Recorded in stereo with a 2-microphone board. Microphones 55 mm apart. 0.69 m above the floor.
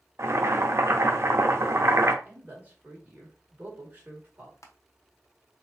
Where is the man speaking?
30° right (ahead or behind), 1.9 m.